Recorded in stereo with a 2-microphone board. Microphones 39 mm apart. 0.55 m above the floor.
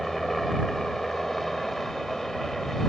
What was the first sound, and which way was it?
A helicopter, 5° left (ahead or behind).